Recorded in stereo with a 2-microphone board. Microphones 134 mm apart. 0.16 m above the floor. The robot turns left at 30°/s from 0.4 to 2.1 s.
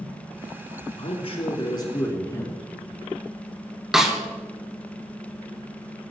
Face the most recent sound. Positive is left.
turn(degrees=-5)  # may be behind; listen again after turning